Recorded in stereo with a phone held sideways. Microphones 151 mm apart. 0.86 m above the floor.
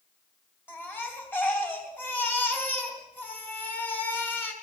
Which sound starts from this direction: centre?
A baby crying, at 0.7 s.